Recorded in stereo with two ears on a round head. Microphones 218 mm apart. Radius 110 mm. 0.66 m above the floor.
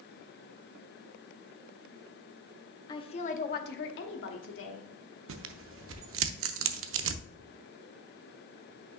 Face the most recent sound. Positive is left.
turn(degrees=-55)  # may be behind; listen again after turning